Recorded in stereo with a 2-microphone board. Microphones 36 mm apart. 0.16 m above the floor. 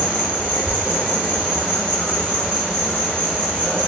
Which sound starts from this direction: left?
An insect, at 0.0 s.